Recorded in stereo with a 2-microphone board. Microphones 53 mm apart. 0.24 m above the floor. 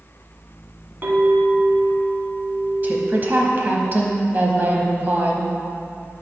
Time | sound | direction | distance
1.0 | a clink | 35° right (ahead or behind) | 1.7 m
2.8 | a woman speaking | 35° right (ahead or behind) | 1.1 m